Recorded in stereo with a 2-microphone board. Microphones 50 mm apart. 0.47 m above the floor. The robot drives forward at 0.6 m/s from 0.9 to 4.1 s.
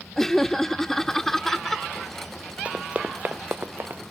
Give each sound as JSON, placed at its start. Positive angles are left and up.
{"t": 0.2, "sound": "laughter", "side_deg": 10}
{"t": 2.6, "sound": "running footsteps", "side_deg": -25}